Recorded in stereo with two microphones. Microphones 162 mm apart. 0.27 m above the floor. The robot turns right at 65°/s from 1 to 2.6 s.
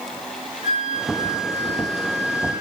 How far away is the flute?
About 3 m.